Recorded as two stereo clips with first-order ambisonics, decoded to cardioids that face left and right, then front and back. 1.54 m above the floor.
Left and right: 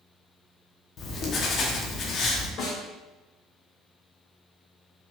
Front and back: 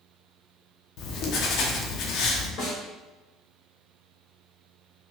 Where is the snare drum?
45° left, 1.8 m.